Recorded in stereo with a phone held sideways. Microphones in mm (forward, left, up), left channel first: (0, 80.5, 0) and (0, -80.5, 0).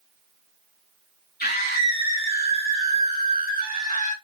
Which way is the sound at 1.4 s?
80° left.